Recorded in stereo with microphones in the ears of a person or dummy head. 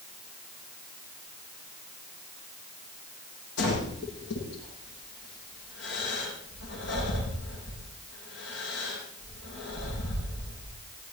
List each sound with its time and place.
3.6 s breathing: 70° left (ahead or behind), 9.5 m